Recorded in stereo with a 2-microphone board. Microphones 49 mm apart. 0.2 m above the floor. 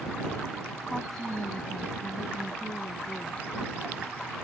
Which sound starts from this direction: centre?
A woman speaking, at 0.9 s.